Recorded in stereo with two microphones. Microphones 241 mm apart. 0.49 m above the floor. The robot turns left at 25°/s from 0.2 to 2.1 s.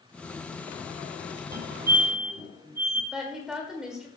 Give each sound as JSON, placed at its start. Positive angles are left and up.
{"t": 1.5, "sound": "a fire alarm", "side_deg": -40, "distance_m": 2.0}
{"t": 3.1, "sound": "a woman speaking", "side_deg": -5, "distance_m": 1.8}